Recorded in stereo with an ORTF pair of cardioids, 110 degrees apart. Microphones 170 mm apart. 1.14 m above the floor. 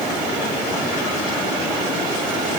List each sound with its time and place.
Only background noise.